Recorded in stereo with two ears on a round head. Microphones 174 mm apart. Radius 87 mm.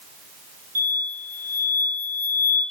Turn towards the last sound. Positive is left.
turn(degrees=-45)  # may be behind; listen again after turning